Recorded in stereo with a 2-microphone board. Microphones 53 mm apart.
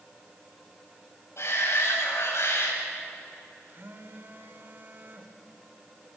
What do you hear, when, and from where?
1.4 s a shout: 60° left (ahead or behind), 7.5 m
3.7 s a phone buzzing: 45° right (ahead or behind), 1.6 m